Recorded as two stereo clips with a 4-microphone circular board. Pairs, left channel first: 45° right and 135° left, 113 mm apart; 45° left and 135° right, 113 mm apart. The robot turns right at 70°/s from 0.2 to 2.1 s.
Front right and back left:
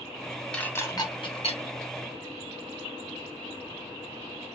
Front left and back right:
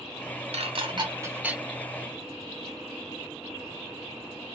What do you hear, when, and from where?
0.5 s dishes clattering: 125° right, 0.8 m; by 1.6 s 50° right, 0.8 m